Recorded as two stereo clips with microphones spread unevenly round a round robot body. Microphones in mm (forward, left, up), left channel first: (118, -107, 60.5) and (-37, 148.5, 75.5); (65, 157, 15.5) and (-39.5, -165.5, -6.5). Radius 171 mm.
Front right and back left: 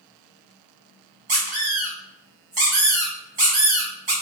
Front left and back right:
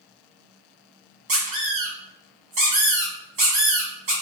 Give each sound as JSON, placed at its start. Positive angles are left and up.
{"t": 1.3, "sound": "a squeak", "azimuth_deg": -175, "distance_m": 1.2}